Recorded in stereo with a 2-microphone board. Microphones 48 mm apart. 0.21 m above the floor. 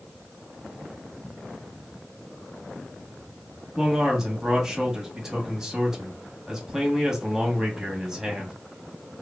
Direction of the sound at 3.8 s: 15° right (ahead or behind).